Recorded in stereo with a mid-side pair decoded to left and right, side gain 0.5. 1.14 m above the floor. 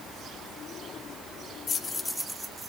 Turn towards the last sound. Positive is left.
turn(degrees=-25)